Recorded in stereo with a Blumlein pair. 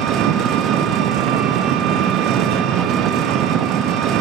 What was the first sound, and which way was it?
An engine running, 35° right.